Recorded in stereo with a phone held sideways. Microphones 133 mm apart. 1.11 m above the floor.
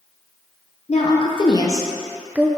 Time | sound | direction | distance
0.9 | a woman speaking | 50° left (ahead or behind) | 0.9 m